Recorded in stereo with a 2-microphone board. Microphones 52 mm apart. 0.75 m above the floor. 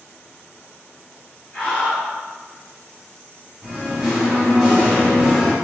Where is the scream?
30° left (ahead or behind), 1.3 m.